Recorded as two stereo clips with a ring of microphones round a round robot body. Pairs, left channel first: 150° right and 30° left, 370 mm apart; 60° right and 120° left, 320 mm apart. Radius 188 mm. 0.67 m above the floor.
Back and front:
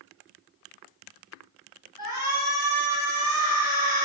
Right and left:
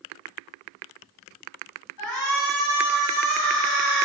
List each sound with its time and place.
2.0 s a shout: 40° right, 6 m